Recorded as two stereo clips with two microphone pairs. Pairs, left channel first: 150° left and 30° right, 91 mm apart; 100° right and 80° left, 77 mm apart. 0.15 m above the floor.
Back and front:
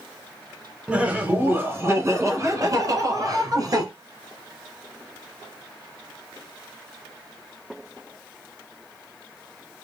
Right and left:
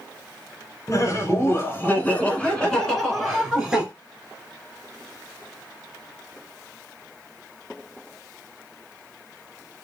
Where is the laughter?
95° right, 1.5 m; by 3.9 s straight ahead, 2.0 m.